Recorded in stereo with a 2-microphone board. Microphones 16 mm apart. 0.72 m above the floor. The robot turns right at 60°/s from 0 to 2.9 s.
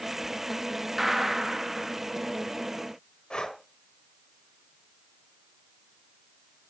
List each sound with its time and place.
1.0 s a gunshot: 15° right (ahead or behind), 0.9 m; by 2.0 s 30° right (ahead or behind), 0.9 m
3.3 s breathing: 80° left, 1.1 m